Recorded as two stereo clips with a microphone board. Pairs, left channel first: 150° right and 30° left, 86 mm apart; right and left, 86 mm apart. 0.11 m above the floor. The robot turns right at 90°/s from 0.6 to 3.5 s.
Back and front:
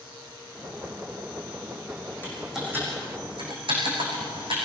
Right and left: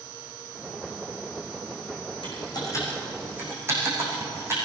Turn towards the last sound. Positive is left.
turn(degrees=30)